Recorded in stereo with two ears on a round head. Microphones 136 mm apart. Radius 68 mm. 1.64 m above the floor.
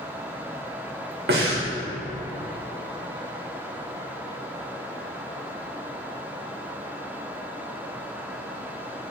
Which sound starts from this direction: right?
Breathing, at 1.3 s.